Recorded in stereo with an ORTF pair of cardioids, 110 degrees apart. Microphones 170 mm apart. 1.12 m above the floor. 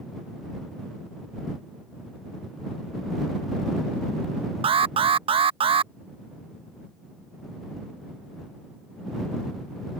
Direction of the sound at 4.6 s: 30° right.